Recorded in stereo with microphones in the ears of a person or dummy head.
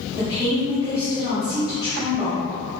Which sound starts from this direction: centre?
A woman speaking, at 0.2 s.